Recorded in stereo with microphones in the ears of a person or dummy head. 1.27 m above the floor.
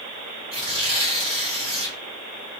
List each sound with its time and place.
0.5 s tearing paper: 30° right (ahead or behind), 1.2 m